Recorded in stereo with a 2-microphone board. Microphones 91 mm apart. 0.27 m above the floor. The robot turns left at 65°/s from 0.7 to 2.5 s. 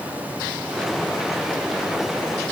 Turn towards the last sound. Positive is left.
No sound to turn to.